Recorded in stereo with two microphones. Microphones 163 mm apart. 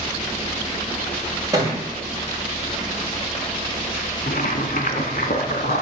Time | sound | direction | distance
1.5 | a thud | 20° right (ahead or behind) | 4.5 m
4.3 | boiling | 80° left | 0.9 m